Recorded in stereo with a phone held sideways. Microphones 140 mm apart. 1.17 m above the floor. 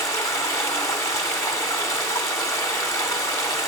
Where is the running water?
20° left (ahead or behind), 1.8 m.